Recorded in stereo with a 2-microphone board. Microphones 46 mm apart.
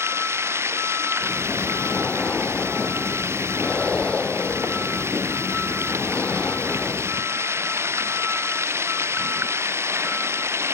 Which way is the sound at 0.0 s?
70° right (ahead or behind).